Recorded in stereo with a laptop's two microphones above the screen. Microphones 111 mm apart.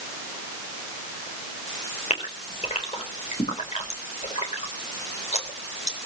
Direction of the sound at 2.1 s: 85° left.